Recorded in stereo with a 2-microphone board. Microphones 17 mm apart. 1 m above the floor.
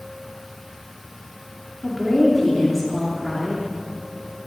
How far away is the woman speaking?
About 2.5 m.